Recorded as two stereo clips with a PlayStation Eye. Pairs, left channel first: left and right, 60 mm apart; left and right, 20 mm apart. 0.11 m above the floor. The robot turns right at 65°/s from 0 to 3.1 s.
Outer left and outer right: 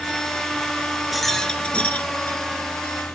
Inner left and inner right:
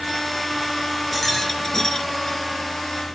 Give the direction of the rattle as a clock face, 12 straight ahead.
12 o'clock.